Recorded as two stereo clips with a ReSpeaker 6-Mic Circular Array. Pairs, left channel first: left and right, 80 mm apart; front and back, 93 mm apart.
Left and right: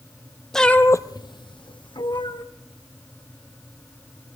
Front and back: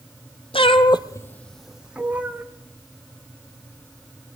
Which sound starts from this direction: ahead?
A cat meowing, at 0.5 s.